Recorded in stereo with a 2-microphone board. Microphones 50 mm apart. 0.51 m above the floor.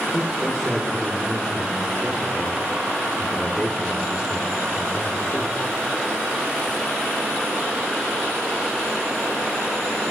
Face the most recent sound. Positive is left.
turn(degrees=0)  # may be behind; listen again after turning